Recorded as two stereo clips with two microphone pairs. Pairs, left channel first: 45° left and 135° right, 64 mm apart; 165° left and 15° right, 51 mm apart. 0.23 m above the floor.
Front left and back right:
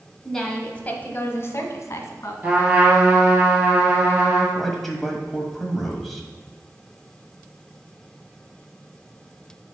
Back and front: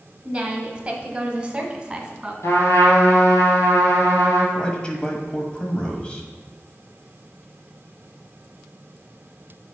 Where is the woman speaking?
40° right, 1.0 m; by 2.3 s 55° left, 1.7 m.